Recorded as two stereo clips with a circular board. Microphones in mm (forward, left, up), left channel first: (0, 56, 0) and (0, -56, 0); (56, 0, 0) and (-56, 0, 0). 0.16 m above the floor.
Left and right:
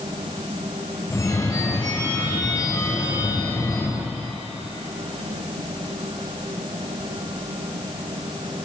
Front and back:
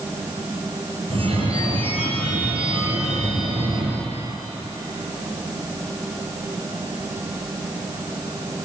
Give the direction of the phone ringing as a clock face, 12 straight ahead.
7 o'clock.